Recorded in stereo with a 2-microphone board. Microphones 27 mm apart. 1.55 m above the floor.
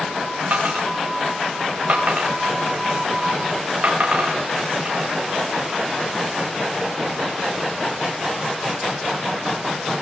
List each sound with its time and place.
0.5 s a dropped coin: 65° right (ahead or behind), 8.5 m